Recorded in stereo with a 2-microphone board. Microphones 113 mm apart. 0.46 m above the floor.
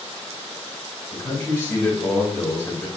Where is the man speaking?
25° left (ahead or behind), 1.8 m.